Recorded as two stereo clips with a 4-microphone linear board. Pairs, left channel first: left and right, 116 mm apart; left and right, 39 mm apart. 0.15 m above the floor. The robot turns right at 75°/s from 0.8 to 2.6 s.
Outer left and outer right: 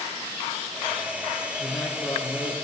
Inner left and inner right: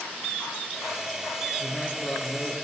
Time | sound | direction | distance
1.6 | a man speaking | 5° left | 3 m